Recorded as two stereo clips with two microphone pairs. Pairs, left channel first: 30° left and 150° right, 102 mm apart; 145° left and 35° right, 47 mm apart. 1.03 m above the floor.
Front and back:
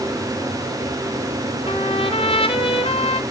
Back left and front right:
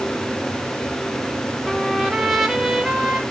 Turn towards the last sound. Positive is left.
turn(degrees=45)